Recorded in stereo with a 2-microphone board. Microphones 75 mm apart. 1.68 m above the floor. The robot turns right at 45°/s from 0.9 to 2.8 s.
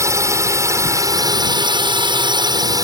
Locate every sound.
0.0 s a drone: 140° right; by 2.9 s 55° right